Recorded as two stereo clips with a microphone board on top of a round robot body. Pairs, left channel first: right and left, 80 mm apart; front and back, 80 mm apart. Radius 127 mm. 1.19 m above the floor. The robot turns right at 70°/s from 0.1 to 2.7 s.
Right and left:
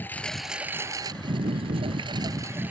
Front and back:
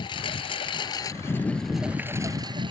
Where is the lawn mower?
20° right; by 2.7 s 160° left.